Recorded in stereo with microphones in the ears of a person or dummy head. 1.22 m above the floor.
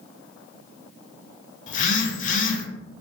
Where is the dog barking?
I don't hear a dog barking.